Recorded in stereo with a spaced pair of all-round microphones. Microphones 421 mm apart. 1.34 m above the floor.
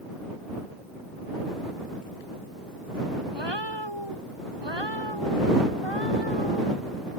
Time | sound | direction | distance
3.3 | a cat meowing | 80° right | ?